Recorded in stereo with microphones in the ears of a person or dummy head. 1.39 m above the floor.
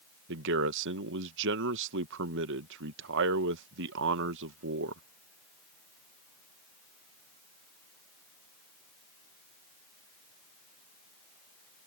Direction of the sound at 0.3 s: 70° right (ahead or behind).